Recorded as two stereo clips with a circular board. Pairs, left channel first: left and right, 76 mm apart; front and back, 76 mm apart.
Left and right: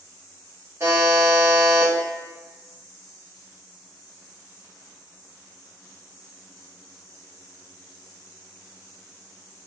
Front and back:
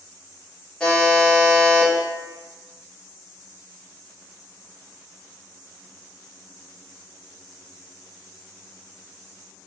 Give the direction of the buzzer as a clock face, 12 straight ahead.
2 o'clock.